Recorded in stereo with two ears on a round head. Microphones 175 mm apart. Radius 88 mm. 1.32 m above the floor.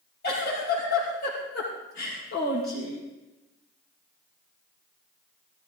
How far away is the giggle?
About 6.5 m.